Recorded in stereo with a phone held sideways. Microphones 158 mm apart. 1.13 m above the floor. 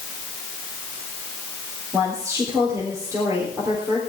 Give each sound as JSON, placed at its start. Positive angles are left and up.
{"t": 1.9, "sound": "a woman speaking", "side_deg": -20, "distance_m": 3.5}